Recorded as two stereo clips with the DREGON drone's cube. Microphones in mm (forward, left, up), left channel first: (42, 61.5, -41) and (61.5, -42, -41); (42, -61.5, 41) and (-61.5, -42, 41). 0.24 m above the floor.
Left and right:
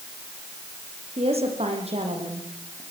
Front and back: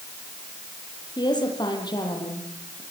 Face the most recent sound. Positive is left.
turn(degrees=-60)